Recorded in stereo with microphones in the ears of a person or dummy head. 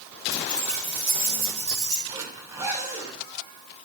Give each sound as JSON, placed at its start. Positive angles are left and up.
{"t": 0.3, "sound": "keys jangling", "side_deg": 0, "distance_m": 5.5}
{"t": 2.1, "sound": "a zipper", "side_deg": -15, "distance_m": 4.0}